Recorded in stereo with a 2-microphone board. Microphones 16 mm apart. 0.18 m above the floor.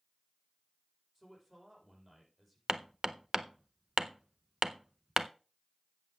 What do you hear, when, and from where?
1.1 s a man speaking: 10° right (ahead or behind), 6 m
2.7 s hammering: 25° right (ahead or behind), 0.5 m